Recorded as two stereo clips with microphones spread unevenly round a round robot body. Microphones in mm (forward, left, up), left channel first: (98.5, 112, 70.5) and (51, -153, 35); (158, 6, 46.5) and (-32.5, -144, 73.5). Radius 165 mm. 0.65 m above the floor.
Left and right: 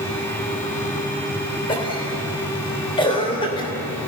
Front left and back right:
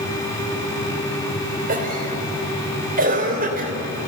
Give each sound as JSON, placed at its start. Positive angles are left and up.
{"t": 1.7, "sound": "a cough", "azimuth_deg": 155, "distance_m": 3.5}